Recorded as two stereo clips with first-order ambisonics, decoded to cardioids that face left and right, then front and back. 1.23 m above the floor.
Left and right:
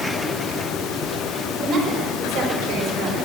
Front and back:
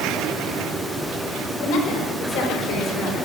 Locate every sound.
1.6 s a woman speaking: 15° right, 4.5 m; by 3.3 s 5° right, 4 m